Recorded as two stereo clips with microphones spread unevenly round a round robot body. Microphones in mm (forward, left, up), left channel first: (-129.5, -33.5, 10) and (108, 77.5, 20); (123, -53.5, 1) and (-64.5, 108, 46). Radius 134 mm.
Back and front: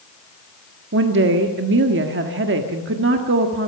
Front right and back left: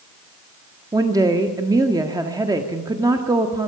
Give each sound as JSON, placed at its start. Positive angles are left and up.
{"t": 0.9, "sound": "a woman speaking", "azimuth_deg": 60, "distance_m": 1.5}